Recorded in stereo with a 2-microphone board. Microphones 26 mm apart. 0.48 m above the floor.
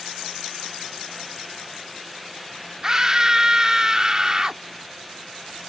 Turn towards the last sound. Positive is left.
turn(degrees=-25)  # may be behind; listen again after turning